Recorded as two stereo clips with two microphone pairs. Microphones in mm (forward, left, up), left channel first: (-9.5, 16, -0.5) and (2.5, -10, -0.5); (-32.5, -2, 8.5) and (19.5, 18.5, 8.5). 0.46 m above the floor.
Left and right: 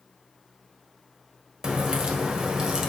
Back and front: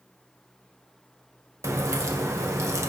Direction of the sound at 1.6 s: Straight ahead.